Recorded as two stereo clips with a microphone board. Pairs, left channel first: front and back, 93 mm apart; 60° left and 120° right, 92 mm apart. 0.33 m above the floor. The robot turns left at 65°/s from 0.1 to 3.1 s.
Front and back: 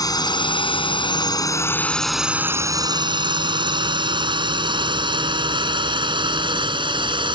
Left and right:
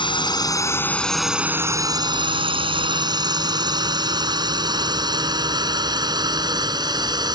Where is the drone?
40° left; by 7.3 s 155° right.